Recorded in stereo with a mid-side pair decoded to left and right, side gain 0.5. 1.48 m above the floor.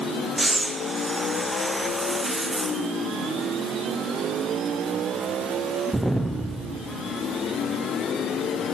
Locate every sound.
0.4 s breathing: 10° right, 0.6 m